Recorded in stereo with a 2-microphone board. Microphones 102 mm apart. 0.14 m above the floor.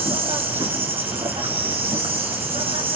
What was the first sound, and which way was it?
An insect, 65° right (ahead or behind).